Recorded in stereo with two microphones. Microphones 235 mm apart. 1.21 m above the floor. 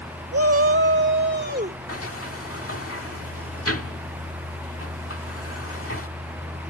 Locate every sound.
0.3 s a shout: 75° right (ahead or behind); by 1.8 s 40° right (ahead or behind)
1.9 s a sliding door: 70° left (ahead or behind)